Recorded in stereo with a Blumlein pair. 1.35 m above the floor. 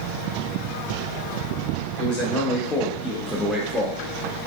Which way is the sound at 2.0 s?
45° left.